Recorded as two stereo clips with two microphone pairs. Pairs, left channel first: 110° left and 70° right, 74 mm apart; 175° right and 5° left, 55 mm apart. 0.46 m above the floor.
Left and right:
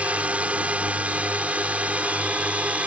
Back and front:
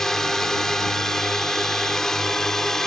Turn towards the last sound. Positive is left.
turn(degrees=-105)